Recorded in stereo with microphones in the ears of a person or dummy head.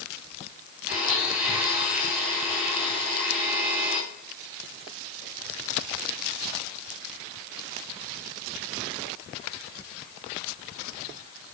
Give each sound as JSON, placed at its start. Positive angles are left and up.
{"t": 0.9, "sound": "a blender", "side_deg": -5, "distance_m": 8.0}